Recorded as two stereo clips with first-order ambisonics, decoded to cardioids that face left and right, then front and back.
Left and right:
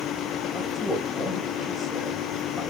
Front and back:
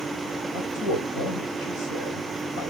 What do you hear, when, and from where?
0.5 s a man speaking: 5° left, 4 m